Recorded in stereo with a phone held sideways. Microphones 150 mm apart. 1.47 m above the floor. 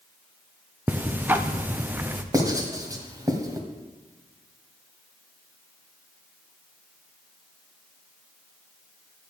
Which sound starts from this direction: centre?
Ticking, at 0.9 s.